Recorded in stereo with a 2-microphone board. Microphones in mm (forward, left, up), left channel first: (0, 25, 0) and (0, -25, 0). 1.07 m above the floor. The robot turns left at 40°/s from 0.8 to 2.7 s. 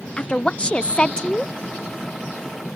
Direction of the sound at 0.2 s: 25° left (ahead or behind).